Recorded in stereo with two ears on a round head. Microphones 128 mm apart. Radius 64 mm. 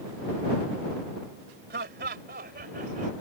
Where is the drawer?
No drawer in this recording.